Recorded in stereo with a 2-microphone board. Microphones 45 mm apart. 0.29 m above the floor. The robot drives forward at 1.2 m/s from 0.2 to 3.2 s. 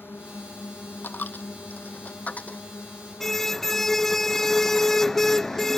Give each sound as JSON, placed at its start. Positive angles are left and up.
{"t": 0.0, "sound": "a drone", "side_deg": 60}
{"t": 1.0, "sound": "a dropped coin", "side_deg": 50}
{"t": 3.2, "sound": "a car horn", "side_deg": 10}